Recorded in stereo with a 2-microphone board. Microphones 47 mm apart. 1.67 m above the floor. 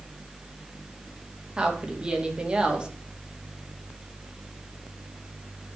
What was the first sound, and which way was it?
A woman speaking, 20° right (ahead or behind).